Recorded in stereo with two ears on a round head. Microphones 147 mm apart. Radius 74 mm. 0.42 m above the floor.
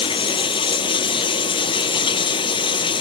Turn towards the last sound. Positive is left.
turn(degrees=30)  # may be behind; listen again after turning